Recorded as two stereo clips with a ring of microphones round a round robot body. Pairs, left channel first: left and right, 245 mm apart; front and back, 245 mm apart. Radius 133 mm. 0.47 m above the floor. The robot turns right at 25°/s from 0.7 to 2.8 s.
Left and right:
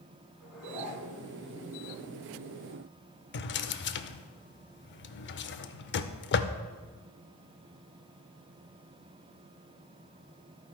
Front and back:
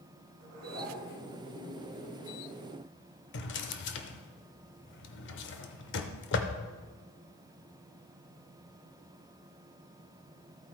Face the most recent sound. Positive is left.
turn(degrees=45)